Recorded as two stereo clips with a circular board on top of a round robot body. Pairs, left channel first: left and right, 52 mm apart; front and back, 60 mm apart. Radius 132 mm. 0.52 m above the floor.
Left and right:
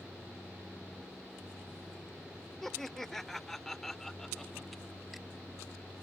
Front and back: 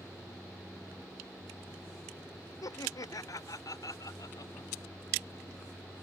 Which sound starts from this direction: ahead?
Laughter, at 2.6 s.